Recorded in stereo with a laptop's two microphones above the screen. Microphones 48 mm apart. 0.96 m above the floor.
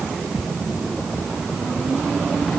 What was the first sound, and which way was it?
Only background noise.